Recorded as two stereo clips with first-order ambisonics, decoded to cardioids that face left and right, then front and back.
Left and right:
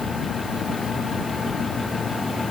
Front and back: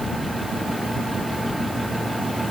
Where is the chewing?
No chewing in this recording.